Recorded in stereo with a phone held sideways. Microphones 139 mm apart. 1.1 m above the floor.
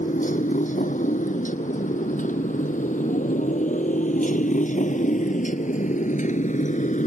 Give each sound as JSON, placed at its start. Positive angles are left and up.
{"t": 0.0, "sound": "a motorcycle", "side_deg": 65}